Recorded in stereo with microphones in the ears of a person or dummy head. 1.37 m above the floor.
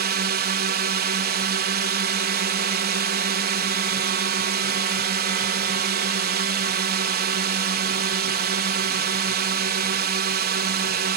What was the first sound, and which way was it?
A drone, 50° right (ahead or behind).